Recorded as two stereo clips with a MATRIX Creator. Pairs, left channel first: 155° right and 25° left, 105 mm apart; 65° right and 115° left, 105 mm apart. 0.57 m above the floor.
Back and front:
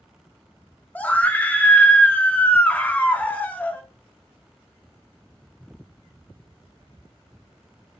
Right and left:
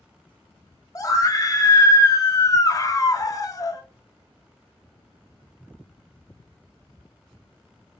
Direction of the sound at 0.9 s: 90° right.